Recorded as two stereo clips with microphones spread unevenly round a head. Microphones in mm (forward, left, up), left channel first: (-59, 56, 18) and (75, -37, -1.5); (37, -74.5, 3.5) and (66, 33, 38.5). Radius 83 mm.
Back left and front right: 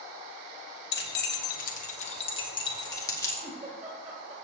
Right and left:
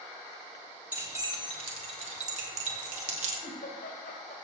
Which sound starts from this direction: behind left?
Keys jangling, at 0.9 s.